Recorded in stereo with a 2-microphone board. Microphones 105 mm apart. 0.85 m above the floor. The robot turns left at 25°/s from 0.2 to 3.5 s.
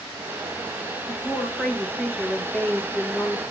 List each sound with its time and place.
1.1 s a woman speaking: centre (ahead or behind), 0.7 m; by 3.4 s 20° left (ahead or behind), 0.7 m